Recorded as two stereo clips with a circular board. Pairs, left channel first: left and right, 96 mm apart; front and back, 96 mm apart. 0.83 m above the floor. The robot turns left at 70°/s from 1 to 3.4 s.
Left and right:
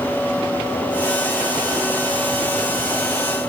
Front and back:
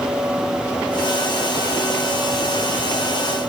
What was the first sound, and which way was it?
Only background noise.